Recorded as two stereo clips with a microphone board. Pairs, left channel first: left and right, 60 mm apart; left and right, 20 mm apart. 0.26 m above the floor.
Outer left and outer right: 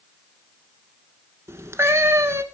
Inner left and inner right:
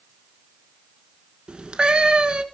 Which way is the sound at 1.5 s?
50° right (ahead or behind).